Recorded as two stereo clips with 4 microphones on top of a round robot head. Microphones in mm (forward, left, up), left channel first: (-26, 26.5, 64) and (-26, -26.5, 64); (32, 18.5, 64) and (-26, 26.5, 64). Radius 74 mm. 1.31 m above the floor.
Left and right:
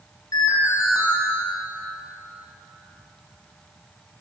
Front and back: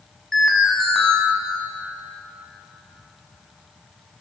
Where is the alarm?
75° left, 6.5 m.